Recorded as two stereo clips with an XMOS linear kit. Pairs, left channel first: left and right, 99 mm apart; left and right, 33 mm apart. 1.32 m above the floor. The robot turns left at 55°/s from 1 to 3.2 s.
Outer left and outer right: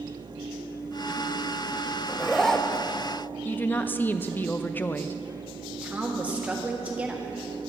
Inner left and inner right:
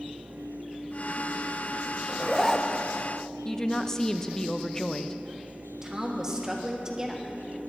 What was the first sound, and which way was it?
A zipper, 5° right (ahead or behind).